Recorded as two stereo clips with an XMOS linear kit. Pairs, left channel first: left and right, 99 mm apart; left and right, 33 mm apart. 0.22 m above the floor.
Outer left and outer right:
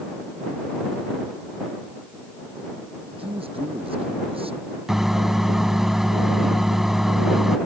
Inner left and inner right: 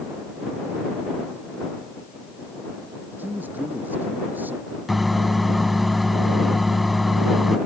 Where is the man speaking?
70° right (ahead or behind).